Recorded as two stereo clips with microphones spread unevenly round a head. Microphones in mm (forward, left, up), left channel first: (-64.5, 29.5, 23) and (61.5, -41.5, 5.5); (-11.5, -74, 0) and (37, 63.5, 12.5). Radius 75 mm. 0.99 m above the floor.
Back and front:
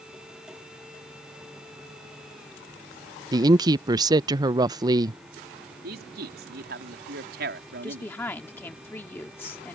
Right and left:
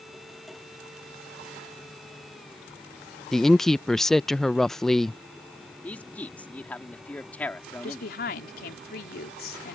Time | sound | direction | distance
3.3 | a woman speaking | 30° right | ?
5.8 | a man speaking | 30° right | ?
7.8 | a woman speaking | 130° right | ?